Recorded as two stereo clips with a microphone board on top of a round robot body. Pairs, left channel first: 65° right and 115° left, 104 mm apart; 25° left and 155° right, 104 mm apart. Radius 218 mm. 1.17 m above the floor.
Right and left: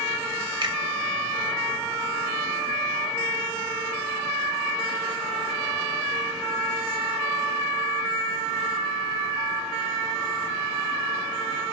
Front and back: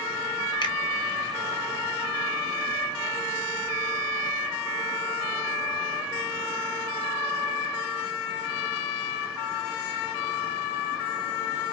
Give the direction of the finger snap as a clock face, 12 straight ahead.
10 o'clock.